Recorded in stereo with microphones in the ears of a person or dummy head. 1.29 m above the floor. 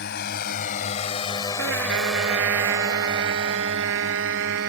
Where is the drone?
60° left (ahead or behind); by 4.7 s 50° right (ahead or behind).